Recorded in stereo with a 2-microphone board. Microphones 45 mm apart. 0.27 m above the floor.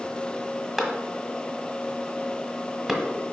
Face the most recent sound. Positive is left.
turn(degrees=0)  # may be behind; listen again after turning